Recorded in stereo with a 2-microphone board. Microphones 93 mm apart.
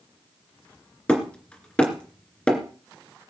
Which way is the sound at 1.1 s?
10° left (ahead or behind).